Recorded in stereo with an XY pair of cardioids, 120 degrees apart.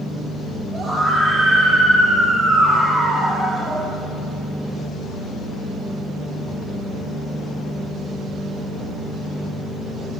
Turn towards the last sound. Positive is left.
turn(degrees=-35)